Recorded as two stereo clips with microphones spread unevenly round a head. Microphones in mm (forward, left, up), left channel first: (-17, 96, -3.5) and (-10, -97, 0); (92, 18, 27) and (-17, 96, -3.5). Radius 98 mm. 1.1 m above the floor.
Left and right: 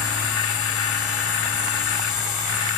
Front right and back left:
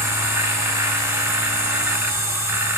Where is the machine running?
70° left, 2.5 m.